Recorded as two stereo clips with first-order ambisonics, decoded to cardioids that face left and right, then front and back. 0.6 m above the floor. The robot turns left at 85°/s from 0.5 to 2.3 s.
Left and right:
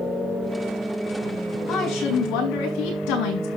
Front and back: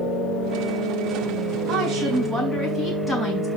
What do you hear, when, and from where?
1.7 s a woman speaking: 145° left, 6 m; by 3.5 s 95° left, 6 m